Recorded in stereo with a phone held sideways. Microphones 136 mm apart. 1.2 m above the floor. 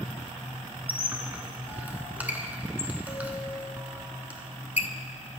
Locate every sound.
0.9 s a squeak: 10° right (ahead or behind), 1.1 m